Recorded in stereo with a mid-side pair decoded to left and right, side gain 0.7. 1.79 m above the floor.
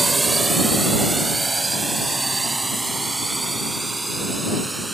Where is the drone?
15° right; by 4.9 s 10° right.